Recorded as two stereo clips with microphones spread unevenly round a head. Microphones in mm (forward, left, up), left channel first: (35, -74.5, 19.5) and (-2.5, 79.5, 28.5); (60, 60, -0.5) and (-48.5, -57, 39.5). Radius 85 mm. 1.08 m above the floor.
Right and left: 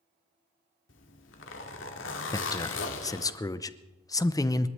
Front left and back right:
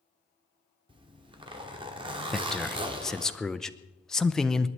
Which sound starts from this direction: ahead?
A man speaking, at 2.3 s.